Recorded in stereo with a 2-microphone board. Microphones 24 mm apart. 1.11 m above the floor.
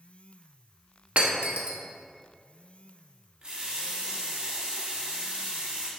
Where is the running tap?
40° right (ahead or behind), 1.4 m.